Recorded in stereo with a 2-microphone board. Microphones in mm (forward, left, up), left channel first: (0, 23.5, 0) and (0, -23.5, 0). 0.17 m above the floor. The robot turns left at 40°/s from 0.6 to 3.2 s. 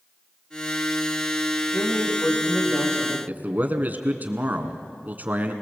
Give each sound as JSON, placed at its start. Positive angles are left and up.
{"t": 1.7, "sound": "a man speaking", "azimuth_deg": 145, "distance_m": 7.5}
{"t": 3.3, "sound": "a man speaking", "side_deg": -40, "distance_m": 2.0}